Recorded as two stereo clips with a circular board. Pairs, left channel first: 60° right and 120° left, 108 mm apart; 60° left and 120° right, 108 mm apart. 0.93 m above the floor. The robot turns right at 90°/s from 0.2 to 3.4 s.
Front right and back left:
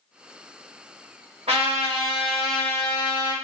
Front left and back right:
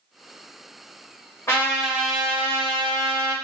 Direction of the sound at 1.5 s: 120° left.